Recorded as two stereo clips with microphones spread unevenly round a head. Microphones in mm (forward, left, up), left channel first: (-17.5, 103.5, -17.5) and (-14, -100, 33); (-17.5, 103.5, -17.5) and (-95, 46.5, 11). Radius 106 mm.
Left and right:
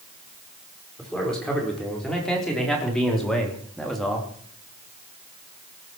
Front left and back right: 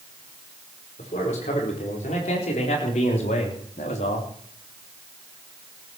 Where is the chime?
No chime in this recording.